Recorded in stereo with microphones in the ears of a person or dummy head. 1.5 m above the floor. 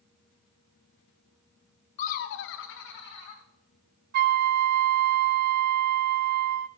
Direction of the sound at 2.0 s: 35° left (ahead or behind).